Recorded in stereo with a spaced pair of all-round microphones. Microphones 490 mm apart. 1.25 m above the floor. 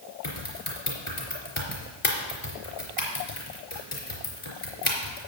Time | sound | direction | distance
0.2 | typing on a keyboard | 75° left (ahead or behind) | 3.5 m